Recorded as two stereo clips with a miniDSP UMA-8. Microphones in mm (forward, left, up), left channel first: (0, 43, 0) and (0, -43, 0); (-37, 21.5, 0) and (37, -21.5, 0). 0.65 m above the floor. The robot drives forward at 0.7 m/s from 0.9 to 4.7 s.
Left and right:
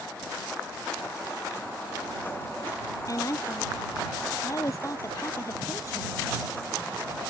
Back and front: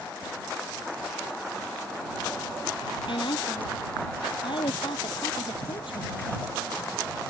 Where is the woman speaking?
140° left.